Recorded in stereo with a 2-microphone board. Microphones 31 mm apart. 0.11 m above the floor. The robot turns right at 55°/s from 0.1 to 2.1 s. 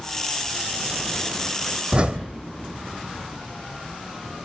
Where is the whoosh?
30° right (ahead or behind), 1.1 m; by 2.3 s 40° right (ahead or behind), 1.1 m.